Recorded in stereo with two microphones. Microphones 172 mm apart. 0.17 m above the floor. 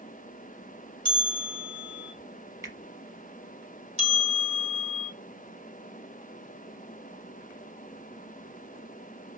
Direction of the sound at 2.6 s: 20° right (ahead or behind).